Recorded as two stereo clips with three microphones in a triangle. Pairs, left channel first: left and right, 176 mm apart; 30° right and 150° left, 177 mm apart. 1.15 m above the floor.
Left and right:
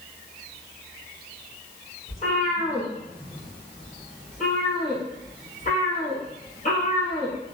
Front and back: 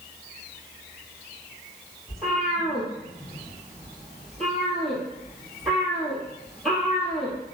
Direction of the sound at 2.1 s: 55° left.